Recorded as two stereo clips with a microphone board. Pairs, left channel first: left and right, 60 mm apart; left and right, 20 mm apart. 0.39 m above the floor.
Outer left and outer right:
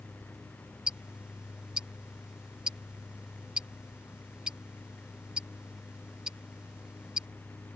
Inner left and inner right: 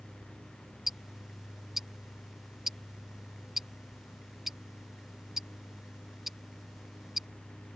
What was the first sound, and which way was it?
Ticking, 15° right (ahead or behind).